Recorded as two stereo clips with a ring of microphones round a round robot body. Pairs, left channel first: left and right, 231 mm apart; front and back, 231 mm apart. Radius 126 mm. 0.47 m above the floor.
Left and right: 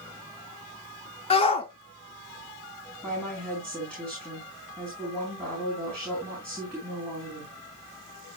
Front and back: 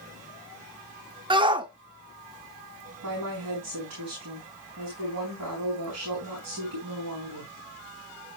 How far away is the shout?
About 0.9 m.